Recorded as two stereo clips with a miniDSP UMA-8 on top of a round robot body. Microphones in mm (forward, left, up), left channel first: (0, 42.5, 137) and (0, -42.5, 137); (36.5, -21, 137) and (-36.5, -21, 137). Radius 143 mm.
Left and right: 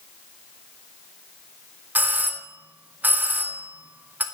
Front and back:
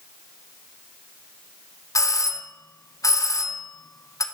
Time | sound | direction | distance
1.9 | a doorbell | 25° right | 2 m